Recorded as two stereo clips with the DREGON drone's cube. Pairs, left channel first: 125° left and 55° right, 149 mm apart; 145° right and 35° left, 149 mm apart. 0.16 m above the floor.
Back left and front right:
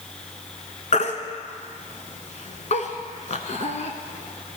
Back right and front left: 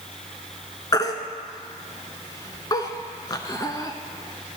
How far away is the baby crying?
About 0.7 m.